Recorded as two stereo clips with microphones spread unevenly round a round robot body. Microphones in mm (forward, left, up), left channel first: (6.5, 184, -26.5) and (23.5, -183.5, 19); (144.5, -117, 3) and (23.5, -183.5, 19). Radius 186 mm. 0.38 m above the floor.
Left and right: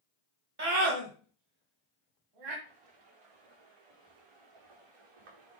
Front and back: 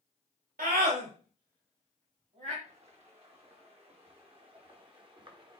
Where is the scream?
150° right, 1.8 m; by 2.5 s 115° right, 2.5 m.